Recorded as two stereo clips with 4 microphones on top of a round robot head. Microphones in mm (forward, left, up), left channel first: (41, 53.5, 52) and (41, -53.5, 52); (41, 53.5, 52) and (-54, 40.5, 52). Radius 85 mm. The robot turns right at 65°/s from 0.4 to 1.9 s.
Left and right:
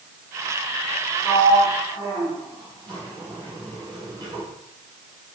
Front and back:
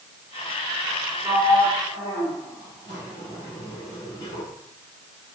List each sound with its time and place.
1.2 s a sliding door: 85° right, 1.8 m; by 4.5 s 45° right, 1.8 m